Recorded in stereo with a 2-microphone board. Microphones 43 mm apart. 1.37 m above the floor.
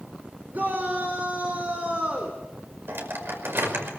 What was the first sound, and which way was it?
A shout, 40° right (ahead or behind).